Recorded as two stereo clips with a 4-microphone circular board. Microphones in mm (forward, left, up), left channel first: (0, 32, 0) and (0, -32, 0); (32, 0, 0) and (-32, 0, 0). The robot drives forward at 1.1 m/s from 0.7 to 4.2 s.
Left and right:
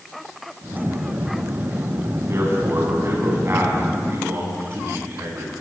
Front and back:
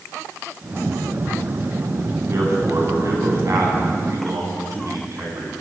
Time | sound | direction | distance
2.3 | a man speaking | 135° right | 9 m